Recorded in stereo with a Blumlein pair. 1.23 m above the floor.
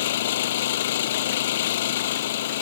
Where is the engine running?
55° left.